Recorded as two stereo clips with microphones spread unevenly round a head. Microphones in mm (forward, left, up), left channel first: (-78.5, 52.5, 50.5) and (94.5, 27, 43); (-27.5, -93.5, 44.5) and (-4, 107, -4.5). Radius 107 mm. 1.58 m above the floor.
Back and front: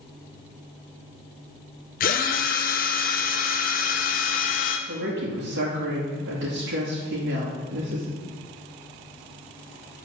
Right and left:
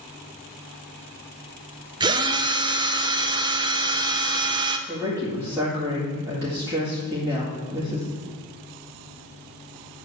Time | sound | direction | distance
2.0 | a drill | 160° left | 0.6 m
4.9 | a woman speaking | 10° left | 2 m